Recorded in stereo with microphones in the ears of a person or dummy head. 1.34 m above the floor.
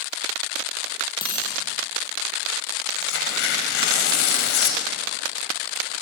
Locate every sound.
1.2 s a dropped coin: 25° left (ahead or behind), 5.5 m
3.0 s tearing paper: 70° left (ahead or behind), 5 m